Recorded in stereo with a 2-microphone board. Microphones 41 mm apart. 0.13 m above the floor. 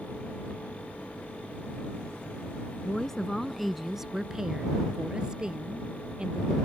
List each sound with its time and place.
2.8 s a woman speaking: 15° left (ahead or behind); by 6.5 s 20° right (ahead or behind)